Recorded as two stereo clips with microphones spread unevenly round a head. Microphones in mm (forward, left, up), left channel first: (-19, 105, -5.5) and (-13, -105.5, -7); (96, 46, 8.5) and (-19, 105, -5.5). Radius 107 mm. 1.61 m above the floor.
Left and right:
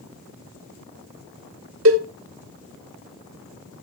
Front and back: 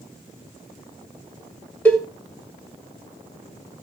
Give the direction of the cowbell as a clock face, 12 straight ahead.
4 o'clock.